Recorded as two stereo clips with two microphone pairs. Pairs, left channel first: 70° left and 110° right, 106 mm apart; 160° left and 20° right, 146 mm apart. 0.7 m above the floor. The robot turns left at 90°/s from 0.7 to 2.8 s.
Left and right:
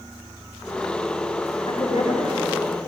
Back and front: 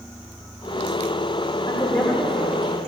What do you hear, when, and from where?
1.7 s a woman speaking: 110° left, 1.7 m; by 2.9 s 10° left, 1.7 m